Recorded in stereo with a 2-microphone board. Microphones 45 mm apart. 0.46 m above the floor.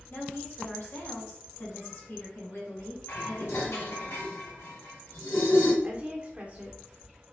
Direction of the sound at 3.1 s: 80° left.